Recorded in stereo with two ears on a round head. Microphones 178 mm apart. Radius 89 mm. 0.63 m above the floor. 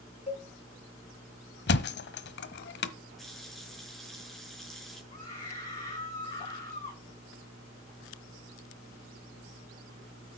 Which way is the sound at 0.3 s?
35° left (ahead or behind).